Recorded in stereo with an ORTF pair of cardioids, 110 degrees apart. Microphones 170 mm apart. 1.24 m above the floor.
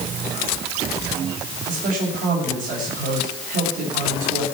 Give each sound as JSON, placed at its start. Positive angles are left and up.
{"t": 1.7, "sound": "a man speaking", "azimuth_deg": -55, "distance_m": 6.5}